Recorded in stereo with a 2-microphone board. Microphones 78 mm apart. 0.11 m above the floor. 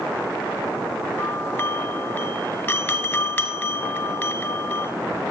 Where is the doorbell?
20° left (ahead or behind), 1.8 m.